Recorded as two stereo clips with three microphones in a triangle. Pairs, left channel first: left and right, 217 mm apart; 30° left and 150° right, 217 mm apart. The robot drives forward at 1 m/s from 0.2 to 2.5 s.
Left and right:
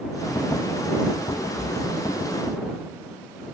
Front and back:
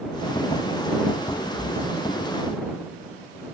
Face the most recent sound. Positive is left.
turn(degrees=-170)